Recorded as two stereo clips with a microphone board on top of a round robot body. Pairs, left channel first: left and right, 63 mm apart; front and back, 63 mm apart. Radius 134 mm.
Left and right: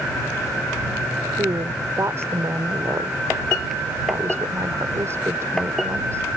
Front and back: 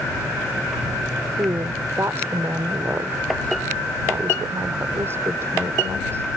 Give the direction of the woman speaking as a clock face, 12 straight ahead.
4 o'clock.